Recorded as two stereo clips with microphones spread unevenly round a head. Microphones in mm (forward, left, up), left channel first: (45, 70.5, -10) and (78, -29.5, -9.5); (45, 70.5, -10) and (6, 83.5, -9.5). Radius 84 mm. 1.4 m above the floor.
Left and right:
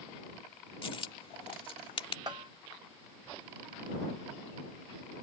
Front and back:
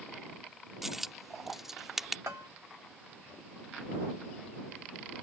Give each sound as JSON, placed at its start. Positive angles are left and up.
{"t": 0.8, "sound": "a dropped coin", "azimuth_deg": 75}
{"t": 2.3, "sound": "a bell", "azimuth_deg": -140}